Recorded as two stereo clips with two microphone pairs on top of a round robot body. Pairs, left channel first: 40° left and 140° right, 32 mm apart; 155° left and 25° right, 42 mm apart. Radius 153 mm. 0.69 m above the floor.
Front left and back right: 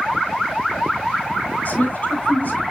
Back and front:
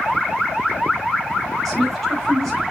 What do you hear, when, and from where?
1.6 s a woman speaking: 75° left, 5.5 m